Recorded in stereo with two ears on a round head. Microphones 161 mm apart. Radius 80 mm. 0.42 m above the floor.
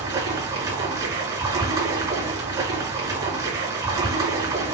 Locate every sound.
0.0 s running water: 20° right (ahead or behind), 5.5 m